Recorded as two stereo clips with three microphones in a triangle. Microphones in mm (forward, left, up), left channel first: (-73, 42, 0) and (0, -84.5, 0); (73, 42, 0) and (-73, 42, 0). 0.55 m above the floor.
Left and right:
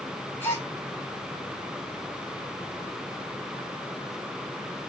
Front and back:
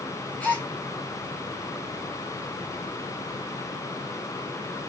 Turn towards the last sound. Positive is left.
turn(degrees=65)